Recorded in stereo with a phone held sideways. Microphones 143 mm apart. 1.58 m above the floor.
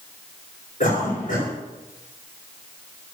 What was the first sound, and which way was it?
A cough, 70° left (ahead or behind).